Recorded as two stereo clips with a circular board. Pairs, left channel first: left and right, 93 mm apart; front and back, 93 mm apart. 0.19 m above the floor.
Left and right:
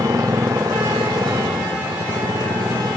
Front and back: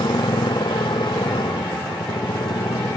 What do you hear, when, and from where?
0.0 s a motorcycle: 35° right